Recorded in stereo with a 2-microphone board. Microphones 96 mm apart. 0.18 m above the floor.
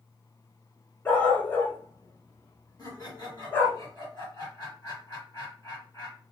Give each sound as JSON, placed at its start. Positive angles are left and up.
{"t": 1.1, "sound": "a dog barking", "side_deg": 20, "distance_m": 0.8}
{"t": 2.8, "sound": "laughter", "side_deg": 35, "distance_m": 1.9}